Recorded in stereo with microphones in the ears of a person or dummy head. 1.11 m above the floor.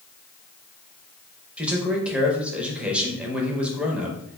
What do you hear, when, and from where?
1.6 s a man speaking: 5° right (ahead or behind), 0.7 m